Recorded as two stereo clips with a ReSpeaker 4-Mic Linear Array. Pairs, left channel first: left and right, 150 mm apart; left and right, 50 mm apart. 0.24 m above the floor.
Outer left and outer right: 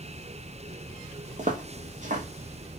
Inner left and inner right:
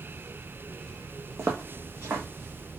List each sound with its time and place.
1.4 s footsteps: 55° right (ahead or behind), 1.0 m